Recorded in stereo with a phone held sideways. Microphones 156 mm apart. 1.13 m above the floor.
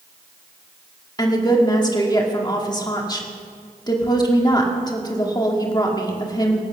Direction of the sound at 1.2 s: 25° left (ahead or behind).